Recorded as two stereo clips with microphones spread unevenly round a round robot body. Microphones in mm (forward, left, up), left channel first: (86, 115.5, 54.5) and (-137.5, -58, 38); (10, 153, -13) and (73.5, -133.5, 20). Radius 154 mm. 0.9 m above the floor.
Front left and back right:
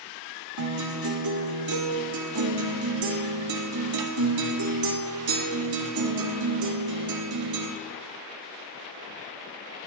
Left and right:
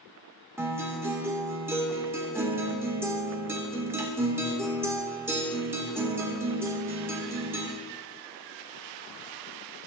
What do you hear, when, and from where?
0.6 s a guitar: 160° right, 2.0 m